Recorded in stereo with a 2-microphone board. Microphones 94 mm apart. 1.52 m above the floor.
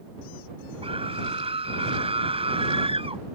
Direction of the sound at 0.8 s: 85° right.